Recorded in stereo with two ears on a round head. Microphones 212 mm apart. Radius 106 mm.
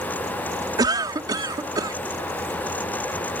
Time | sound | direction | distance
0.8 | a cough | 15° right (ahead or behind) | ?